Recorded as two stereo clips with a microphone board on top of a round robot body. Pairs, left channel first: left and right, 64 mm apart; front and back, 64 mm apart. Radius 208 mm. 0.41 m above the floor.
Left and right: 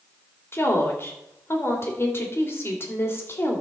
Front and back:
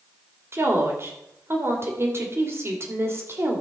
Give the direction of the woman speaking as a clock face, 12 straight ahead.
7 o'clock.